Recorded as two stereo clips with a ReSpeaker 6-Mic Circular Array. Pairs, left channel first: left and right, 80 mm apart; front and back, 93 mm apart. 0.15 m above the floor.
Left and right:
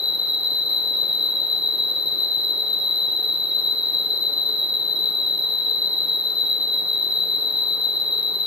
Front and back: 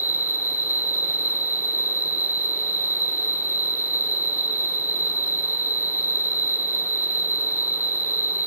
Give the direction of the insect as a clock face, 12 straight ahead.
6 o'clock.